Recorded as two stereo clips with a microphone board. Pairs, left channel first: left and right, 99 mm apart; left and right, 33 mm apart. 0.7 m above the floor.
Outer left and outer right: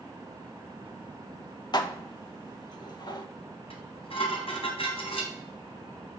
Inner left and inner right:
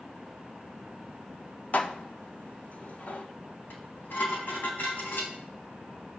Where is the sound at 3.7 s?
70° left (ahead or behind), 3.5 m.